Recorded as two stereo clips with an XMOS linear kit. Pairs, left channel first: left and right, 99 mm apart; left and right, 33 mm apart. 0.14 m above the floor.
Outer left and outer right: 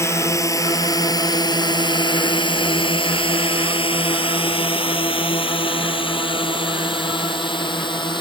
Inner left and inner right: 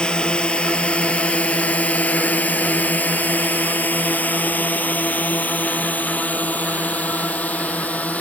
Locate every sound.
0.0 s a drone: 30° left (ahead or behind); by 8.2 s 55° left (ahead or behind)